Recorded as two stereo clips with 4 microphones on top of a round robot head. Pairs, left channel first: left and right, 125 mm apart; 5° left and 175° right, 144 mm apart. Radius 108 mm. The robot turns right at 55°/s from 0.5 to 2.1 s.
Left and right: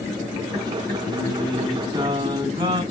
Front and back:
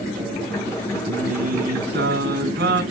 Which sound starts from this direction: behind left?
Singing, at 1.1 s.